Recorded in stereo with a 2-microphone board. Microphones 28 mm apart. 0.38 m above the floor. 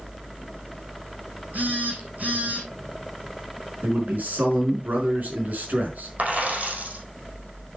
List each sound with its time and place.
1.5 s a phone buzzing: 70° right (ahead or behind), 2.5 m
3.8 s a man speaking: 75° right (ahead or behind), 5 m
6.2 s a dropped coin: 65° right (ahead or behind), 5 m